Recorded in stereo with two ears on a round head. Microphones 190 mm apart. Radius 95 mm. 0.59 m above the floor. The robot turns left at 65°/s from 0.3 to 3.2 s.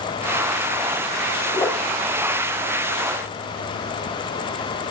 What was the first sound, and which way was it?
A whoosh, 15° left (ahead or behind).